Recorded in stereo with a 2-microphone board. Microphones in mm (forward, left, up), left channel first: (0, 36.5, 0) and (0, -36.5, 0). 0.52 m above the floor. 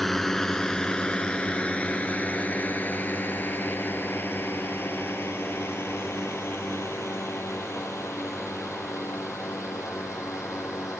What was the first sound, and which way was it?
A drone, 5° left (ahead or behind).